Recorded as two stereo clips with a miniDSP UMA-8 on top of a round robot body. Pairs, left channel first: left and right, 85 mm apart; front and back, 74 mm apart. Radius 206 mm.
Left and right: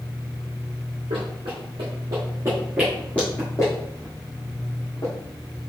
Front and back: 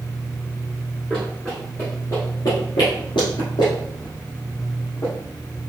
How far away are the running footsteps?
About 1.5 m.